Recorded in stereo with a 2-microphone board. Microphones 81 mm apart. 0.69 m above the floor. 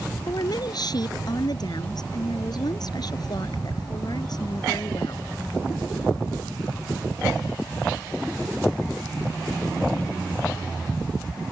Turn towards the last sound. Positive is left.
turn(degrees=55)  # may be behind; listen again after turning